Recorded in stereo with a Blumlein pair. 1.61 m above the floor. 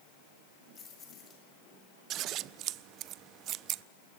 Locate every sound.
0.8 s keys jangling: 20° left, 6.5 m
2.1 s scissors: 35° right, 0.6 m